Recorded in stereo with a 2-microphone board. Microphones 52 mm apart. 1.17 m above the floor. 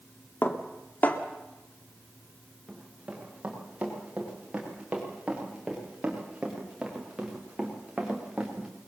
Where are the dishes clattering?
35° left (ahead or behind), 1.9 m.